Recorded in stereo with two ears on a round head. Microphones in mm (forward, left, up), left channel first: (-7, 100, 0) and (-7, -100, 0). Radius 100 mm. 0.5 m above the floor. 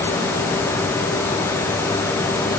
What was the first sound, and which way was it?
Only background noise.